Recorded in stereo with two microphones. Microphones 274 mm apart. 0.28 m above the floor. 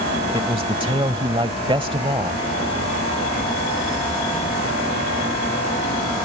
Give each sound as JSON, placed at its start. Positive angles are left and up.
{"t": 0.3, "sound": "a man speaking", "side_deg": -20}